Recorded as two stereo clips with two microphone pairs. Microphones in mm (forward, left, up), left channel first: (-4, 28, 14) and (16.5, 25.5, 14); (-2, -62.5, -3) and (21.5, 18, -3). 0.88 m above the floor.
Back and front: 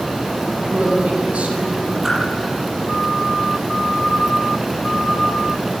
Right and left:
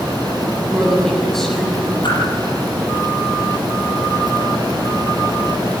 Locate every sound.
0.7 s a woman speaking: 20° right, 8 m
2.0 s a whoosh: 80° right, 7 m